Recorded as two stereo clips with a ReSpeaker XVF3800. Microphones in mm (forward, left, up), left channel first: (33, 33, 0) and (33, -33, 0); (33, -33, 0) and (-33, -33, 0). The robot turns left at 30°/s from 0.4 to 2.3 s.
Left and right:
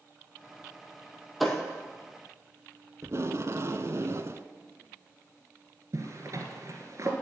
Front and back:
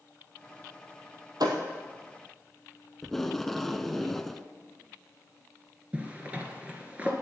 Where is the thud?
Straight behind, 1.9 m; by 1.6 s 175° left, 1.9 m.